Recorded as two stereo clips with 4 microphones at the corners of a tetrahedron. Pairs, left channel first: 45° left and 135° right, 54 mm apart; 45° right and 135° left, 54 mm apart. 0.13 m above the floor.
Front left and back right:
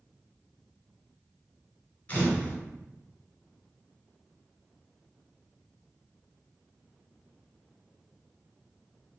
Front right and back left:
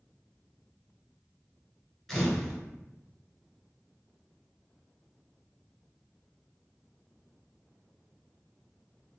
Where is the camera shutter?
50° left, 1.5 m.